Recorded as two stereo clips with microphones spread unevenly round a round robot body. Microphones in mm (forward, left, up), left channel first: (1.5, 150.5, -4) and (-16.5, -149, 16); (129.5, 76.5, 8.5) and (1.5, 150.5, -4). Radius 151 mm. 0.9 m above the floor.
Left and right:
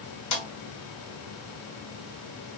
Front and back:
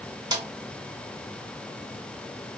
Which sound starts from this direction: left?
A snare drum, at 0.3 s.